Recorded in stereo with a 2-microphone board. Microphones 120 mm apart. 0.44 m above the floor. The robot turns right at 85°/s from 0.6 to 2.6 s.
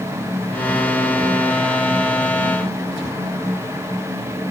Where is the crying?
No crying in this recording.